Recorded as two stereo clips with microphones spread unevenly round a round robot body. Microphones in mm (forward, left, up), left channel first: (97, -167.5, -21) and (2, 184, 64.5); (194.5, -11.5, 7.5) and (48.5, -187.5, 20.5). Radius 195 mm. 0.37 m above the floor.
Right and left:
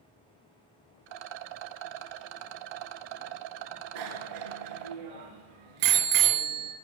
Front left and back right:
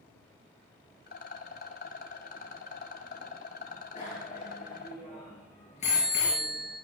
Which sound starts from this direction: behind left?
A bicycle bell, at 4.0 s.